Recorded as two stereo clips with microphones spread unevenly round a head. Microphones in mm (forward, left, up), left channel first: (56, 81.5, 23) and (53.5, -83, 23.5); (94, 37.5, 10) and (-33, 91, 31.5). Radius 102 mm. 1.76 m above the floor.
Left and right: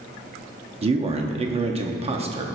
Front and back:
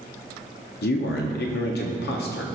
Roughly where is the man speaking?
Ahead right.